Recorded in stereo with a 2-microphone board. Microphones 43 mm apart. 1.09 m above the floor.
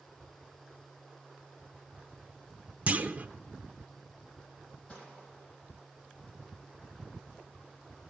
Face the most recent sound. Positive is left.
turn(degrees=30)  # may be behind; listen again after turning